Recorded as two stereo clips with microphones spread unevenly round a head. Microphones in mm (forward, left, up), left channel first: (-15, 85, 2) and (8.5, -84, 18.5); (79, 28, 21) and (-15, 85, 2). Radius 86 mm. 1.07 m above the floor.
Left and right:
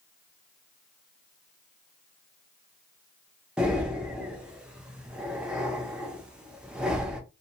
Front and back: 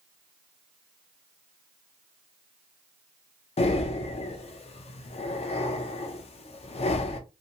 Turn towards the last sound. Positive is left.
turn(degrees=5)